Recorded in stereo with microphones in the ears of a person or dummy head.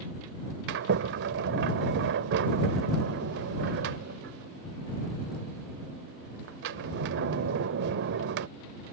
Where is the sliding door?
55° right (ahead or behind).